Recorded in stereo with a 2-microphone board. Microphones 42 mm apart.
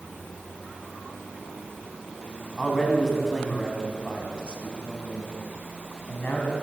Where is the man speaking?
Centre (ahead or behind), 3 m; by 6.5 s 50° left (ahead or behind), 3 m.